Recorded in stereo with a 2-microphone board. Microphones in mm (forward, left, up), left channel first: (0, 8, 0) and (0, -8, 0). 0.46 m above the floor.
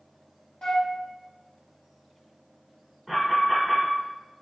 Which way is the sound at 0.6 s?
55° left (ahead or behind).